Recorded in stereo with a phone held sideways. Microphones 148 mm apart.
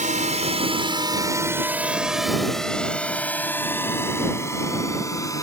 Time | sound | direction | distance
0.0 | a drone | 65° right (ahead or behind) | ?